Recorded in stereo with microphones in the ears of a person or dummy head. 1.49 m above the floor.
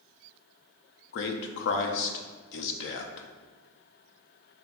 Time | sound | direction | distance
1.1 | a man speaking | 65° left (ahead or behind) | 0.6 m